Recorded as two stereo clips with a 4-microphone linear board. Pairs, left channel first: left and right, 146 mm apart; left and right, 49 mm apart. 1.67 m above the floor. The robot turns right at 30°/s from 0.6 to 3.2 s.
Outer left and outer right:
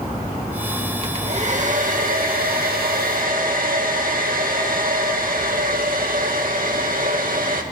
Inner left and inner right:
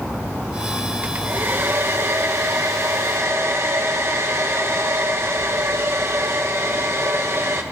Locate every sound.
1.0 s a hair dryer: 140° right, 2 m; by 7.6 s 75° right, 2 m